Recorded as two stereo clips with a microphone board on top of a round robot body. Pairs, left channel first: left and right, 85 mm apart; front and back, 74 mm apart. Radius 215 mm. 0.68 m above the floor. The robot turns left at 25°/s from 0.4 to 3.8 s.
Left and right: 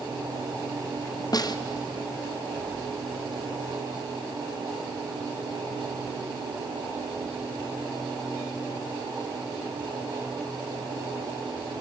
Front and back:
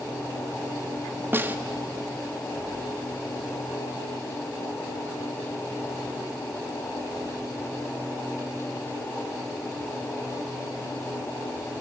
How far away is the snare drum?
About 1.4 m.